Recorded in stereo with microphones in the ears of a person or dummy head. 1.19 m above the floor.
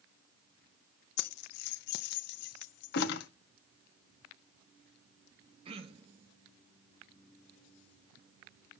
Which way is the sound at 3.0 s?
60° left (ahead or behind).